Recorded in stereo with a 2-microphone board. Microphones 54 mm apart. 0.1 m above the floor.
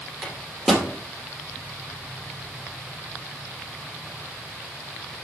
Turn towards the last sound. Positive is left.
turn(degrees=5)  # may be behind; listen again after turning